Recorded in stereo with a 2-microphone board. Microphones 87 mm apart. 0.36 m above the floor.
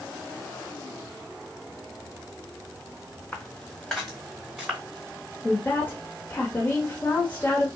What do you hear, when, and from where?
3.3 s footsteps: 15° left (ahead or behind), 1.7 m; by 4.8 s 10° right (ahead or behind), 2.5 m
5.4 s a woman speaking: 20° left (ahead or behind), 0.8 m